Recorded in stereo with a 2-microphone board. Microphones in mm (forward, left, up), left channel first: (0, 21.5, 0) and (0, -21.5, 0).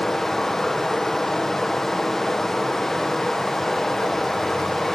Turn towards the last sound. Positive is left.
turn(degrees=10)  # may be behind; listen again after turning